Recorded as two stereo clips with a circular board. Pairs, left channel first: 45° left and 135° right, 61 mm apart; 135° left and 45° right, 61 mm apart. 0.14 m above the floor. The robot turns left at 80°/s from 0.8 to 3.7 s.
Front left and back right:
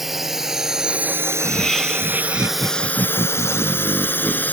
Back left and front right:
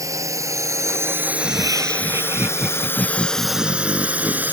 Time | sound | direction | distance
0.0 | a drone | 50° right | ?
1.3 | laughter | 5° right | ?